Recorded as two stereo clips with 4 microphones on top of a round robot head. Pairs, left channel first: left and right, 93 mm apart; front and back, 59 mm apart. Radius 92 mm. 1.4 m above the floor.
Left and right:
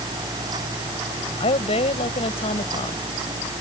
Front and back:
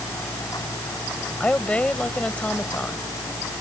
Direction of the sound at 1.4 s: 70° left.